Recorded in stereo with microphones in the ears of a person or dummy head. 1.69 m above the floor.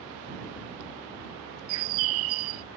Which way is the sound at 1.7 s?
80° right.